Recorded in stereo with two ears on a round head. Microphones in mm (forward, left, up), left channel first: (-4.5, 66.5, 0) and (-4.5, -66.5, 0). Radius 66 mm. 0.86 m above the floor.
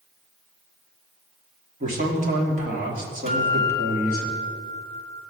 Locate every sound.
1.8 s a man speaking: 55° right (ahead or behind), 1.9 m
3.3 s a guitar: 50° right (ahead or behind), 1.7 m